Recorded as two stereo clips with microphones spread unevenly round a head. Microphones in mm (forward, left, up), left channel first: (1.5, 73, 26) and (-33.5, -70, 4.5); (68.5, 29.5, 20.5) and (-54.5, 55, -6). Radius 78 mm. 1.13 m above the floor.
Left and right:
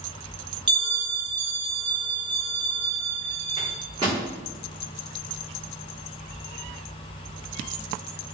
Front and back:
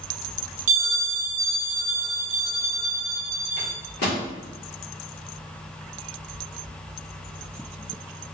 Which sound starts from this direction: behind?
A bell, at 0.7 s.